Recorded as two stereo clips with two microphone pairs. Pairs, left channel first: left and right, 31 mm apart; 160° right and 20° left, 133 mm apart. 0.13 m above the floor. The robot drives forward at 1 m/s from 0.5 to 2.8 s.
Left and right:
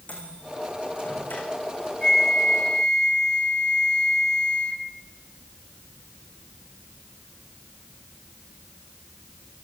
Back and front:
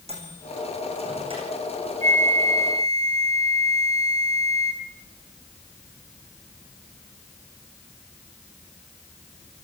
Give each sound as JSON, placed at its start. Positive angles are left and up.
{"t": 0.1, "sound": "a microwave", "azimuth_deg": 60, "distance_m": 5.5}
{"t": 2.0, "sound": "a flute", "azimuth_deg": 25, "distance_m": 3.0}